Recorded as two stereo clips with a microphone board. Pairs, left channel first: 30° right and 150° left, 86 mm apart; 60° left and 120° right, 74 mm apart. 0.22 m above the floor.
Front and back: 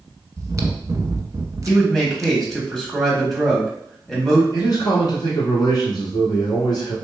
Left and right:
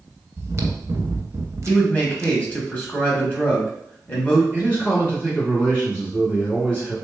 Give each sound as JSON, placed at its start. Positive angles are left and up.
{"t": 0.4, "sound": "chewing", "azimuth_deg": -160, "distance_m": 0.5}
{"t": 1.7, "sound": "a man speaking", "azimuth_deg": 50, "distance_m": 1.0}
{"t": 4.5, "sound": "a man speaking", "azimuth_deg": -10, "distance_m": 2.0}